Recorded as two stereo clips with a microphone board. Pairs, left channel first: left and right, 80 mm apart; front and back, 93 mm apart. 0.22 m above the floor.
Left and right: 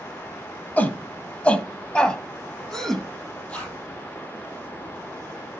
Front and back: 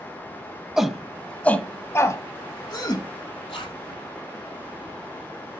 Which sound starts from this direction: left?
A shout, at 0.8 s.